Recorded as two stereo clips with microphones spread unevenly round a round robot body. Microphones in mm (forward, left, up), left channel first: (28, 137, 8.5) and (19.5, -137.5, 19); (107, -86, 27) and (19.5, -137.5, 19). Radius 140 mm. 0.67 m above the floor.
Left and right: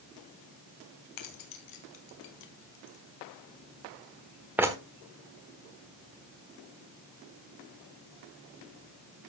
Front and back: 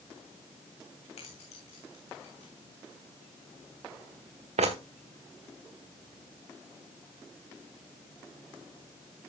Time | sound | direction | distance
1.2 | keys jangling | 75° left | 2.5 m